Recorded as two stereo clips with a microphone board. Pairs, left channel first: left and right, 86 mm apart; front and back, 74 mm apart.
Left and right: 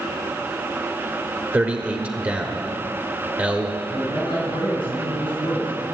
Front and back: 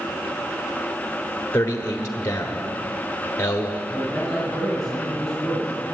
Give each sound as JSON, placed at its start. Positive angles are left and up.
{"t": 1.5, "sound": "a man speaking", "azimuth_deg": -35, "distance_m": 0.9}
{"t": 3.9, "sound": "a man speaking", "azimuth_deg": 95, "distance_m": 5.0}